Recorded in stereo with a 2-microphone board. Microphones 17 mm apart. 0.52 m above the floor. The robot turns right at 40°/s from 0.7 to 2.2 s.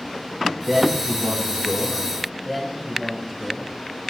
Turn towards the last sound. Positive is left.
turn(degrees=-10)  # may be behind; listen again after turning